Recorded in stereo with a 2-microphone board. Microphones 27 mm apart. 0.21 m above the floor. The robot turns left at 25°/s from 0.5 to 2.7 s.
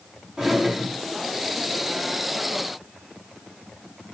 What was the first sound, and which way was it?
A drawer, 15° right (ahead or behind).